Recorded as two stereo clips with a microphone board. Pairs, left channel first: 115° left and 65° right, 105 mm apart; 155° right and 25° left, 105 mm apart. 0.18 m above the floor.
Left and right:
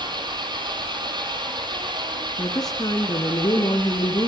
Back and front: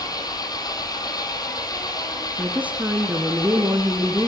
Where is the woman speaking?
90° left, 2.0 m.